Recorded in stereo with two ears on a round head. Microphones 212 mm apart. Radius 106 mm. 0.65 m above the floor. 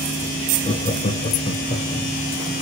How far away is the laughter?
About 1.1 m.